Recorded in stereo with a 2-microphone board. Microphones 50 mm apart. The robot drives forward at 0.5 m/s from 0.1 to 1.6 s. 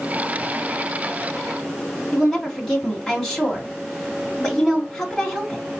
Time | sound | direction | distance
2.1 | a woman speaking | 15° left (ahead or behind) | 2 m